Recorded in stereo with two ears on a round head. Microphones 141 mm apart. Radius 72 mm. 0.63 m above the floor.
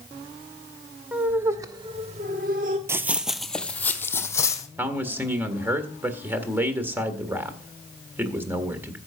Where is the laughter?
10° right (ahead or behind), 2.0 m; by 2.8 s 50° right (ahead or behind), 1.5 m.